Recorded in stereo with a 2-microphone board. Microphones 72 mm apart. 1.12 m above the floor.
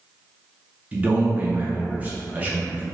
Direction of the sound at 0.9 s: 20° right (ahead or behind).